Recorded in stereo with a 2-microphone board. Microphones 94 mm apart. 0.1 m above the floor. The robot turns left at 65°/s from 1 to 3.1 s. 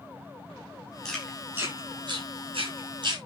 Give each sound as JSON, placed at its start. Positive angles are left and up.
{"t": 1.1, "sound": "chewing", "side_deg": 5, "distance_m": 9.5}